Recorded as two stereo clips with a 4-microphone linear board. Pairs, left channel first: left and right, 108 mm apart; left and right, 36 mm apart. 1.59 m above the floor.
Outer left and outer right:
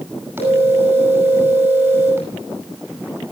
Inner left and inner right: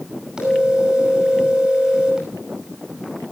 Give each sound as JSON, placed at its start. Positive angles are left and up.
{"t": 0.4, "sound": "a phone ringing", "side_deg": -20, "distance_m": 10.0}